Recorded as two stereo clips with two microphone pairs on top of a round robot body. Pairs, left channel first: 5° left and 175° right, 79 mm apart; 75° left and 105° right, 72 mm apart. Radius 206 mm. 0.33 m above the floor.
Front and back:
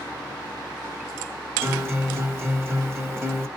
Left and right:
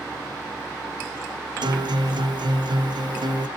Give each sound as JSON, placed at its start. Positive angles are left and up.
{"t": 1.6, "sound": "a guitar", "azimuth_deg": -115, "distance_m": 1.2}